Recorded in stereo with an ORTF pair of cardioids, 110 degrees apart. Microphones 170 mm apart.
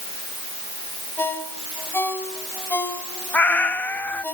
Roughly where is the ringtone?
Ahead.